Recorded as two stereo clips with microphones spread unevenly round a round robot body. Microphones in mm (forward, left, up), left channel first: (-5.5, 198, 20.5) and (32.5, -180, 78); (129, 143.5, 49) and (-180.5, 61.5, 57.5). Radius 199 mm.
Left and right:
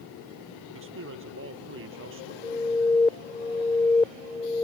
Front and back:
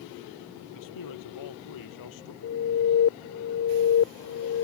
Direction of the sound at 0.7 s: 25° right.